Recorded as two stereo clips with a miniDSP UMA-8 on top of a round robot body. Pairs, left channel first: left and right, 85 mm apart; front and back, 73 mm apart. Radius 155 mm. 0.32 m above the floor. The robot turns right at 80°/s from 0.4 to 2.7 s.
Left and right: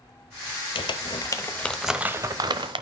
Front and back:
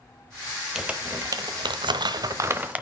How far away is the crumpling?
About 1.0 m.